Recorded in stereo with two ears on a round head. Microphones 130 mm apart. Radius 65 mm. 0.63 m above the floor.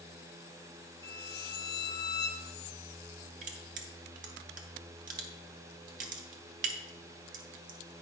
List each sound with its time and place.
1.0 s a violin: 25° left (ahead or behind), 0.5 m
3.4 s crushing: 60° right (ahead or behind), 1.2 m